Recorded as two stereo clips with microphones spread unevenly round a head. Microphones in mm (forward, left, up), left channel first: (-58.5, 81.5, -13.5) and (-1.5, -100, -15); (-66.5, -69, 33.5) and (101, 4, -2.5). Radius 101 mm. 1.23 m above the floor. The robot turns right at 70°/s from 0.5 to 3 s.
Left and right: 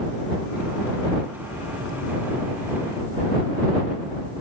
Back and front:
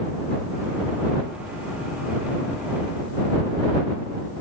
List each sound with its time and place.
Only background noise.